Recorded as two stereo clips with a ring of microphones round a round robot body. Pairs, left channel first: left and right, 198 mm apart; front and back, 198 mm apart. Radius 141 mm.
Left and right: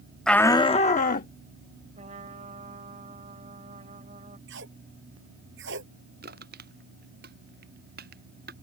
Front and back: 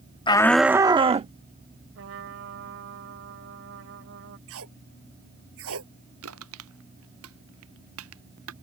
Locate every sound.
0.3 s a shout: 5° left; by 1.3 s 130° left
1.9 s a trumpet: 155° right
4.5 s tape being pulled: 140° right
6.2 s crushing: 150° right